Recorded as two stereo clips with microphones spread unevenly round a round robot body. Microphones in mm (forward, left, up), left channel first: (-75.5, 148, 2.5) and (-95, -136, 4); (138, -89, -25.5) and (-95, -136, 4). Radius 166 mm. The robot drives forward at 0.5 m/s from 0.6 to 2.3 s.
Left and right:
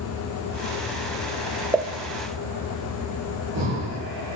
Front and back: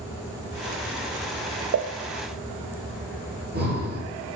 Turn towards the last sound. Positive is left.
turn(degrees=-120)